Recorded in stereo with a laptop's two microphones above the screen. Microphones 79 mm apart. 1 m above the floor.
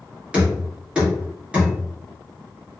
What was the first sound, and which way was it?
Knocking, 15° right (ahead or behind).